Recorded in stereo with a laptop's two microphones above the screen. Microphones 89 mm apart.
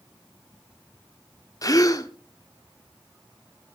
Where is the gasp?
40° left (ahead or behind), 1.3 m.